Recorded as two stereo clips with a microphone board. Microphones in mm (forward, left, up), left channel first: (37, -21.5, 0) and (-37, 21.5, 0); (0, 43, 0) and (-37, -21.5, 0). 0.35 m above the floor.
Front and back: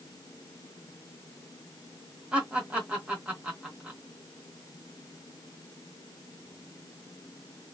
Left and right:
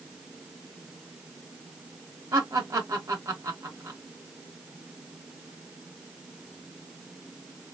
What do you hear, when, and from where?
2.3 s laughter: 140° right, 1.1 m